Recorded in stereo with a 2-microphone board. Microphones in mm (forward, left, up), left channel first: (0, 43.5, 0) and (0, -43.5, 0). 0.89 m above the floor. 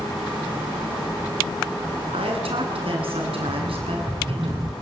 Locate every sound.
2.1 s a woman speaking: 85° right, 9 m
3.5 s a rattle: 40° right (ahead or behind), 7 m